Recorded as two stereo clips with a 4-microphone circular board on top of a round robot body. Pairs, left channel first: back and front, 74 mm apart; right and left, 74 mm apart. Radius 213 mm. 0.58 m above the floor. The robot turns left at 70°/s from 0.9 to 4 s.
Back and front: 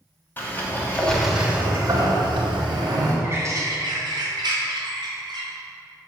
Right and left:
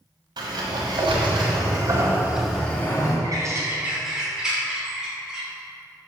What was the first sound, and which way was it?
A sliding door, 115° left.